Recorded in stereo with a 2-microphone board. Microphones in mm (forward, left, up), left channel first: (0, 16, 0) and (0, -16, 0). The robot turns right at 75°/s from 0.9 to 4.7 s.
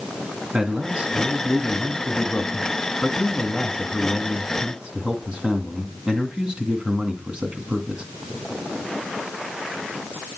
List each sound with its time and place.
0.5 s a man speaking: 60° right, 2 m; by 8.0 s 135° right, 2 m